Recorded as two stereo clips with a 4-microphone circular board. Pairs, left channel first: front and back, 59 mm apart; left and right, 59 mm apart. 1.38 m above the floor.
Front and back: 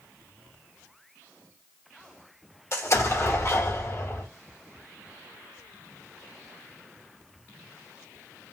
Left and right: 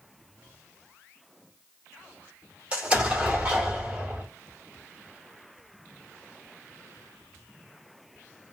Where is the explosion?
25° right, 1.5 m.